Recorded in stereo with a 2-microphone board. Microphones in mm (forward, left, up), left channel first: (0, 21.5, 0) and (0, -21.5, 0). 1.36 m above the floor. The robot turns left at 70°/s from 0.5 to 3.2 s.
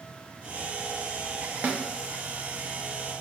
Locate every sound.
1.6 s a snare drum: 40° right (ahead or behind), 0.5 m; by 1.8 s 25° right (ahead or behind), 0.5 m